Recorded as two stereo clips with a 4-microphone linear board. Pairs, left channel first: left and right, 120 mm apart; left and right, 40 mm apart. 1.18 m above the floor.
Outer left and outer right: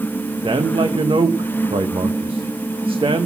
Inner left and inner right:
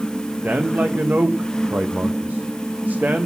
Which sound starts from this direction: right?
A man speaking, at 0.4 s.